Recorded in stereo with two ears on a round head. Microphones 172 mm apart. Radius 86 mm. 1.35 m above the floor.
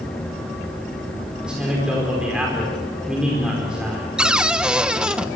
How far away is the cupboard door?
About 0.8 m.